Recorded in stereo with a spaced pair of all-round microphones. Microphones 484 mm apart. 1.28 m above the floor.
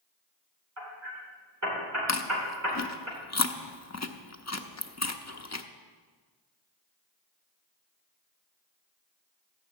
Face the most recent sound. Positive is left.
turn(degrees=35)  # may be behind; listen again after turning